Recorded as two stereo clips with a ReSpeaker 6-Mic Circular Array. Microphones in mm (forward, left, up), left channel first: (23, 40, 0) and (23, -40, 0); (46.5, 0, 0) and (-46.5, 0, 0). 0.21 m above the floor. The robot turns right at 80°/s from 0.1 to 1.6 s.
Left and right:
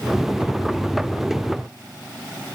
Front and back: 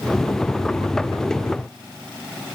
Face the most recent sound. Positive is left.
No sound to turn to.